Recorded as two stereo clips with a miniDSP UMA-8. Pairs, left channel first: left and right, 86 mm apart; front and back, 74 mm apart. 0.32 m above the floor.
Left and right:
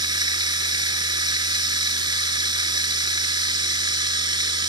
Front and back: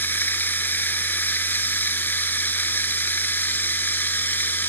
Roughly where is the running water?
Ahead right.